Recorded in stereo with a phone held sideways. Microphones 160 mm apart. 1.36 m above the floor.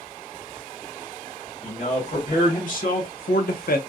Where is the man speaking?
55° left (ahead or behind), 1.7 m; by 3.8 s 80° left, 0.7 m.